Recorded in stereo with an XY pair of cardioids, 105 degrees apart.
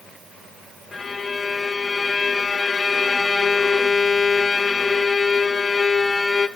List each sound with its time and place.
0.9 s a violin: 25° left, 0.8 m